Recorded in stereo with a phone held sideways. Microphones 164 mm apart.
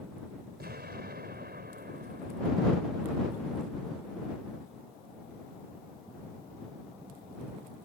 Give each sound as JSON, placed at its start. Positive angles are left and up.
{"t": 0.6, "sound": "an explosion", "side_deg": -80}